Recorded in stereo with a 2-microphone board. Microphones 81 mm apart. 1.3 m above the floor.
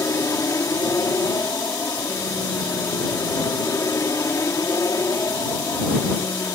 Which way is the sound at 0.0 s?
40° left (ahead or behind).